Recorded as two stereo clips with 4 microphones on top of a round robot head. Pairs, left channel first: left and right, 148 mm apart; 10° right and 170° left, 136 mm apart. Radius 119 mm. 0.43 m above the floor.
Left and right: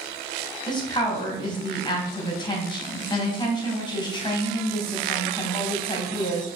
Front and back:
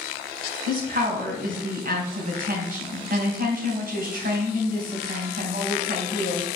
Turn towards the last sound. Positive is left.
turn(degrees=150)